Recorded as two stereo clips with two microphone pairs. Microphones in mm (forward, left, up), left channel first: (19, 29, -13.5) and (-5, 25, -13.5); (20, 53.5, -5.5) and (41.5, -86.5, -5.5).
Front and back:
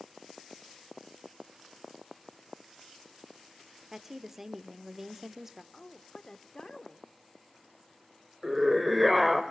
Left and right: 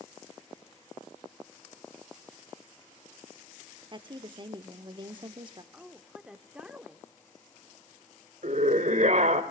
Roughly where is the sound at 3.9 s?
Right.